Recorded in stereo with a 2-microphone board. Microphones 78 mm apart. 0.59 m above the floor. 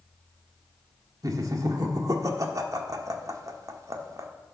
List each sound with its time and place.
1.2 s laughter: 50° right (ahead or behind), 1.3 m